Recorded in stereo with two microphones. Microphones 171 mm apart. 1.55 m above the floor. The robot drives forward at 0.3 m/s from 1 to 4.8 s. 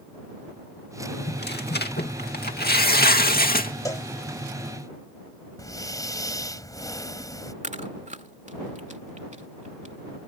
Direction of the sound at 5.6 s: 20° left (ahead or behind).